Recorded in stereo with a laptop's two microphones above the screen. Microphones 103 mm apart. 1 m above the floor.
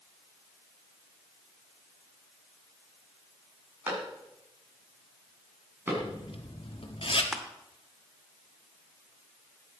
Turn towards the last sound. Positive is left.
turn(degrees=-5)  # may be behind; listen again after turning